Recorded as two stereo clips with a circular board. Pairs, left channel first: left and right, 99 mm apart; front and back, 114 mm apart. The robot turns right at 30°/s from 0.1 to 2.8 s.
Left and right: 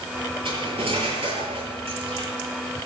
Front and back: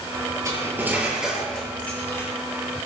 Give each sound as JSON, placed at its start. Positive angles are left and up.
{"t": 0.5, "sound": "cutlery clinking", "azimuth_deg": -120, "distance_m": 7.0}